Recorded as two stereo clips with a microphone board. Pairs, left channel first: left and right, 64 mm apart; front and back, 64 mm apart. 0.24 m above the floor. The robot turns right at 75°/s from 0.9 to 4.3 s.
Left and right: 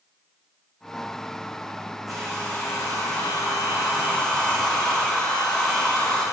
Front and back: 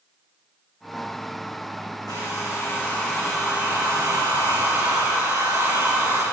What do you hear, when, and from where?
2.1 s a hair dryer: straight ahead, 7 m; by 6.2 s 165° left, 7 m